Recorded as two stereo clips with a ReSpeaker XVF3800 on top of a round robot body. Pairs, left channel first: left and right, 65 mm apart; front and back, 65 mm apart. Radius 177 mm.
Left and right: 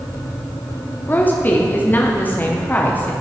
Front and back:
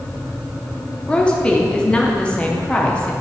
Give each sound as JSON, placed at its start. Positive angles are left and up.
{"t": 1.1, "sound": "a woman speaking", "azimuth_deg": 60, "distance_m": 0.8}